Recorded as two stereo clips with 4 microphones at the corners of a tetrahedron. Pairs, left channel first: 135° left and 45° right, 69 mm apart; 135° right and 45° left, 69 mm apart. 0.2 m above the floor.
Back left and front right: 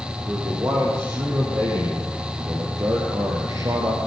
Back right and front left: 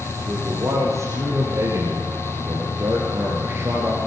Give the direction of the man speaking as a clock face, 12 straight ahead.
12 o'clock.